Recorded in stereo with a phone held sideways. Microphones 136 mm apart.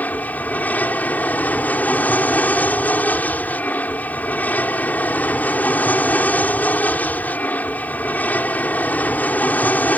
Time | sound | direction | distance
0.0 | an aircraft | 10° left (ahead or behind) | ?